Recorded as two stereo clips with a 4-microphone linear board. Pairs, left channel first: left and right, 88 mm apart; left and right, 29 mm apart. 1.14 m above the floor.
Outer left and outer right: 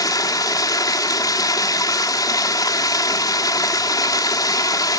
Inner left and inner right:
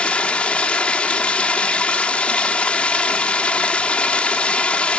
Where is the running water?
45° left (ahead or behind), 1.3 m.